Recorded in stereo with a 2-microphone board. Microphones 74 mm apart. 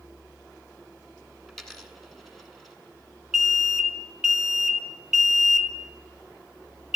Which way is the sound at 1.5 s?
5° left (ahead or behind).